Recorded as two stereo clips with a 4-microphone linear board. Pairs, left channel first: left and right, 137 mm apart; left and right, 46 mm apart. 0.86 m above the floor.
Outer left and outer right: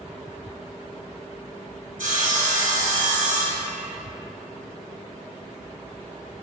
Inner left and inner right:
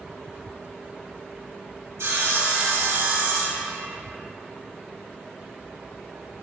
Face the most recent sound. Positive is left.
turn(degrees=-80)